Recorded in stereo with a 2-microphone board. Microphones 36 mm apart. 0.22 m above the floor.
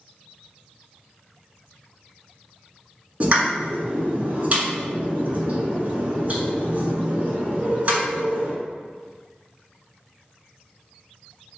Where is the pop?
40° right (ahead or behind), 1.3 m.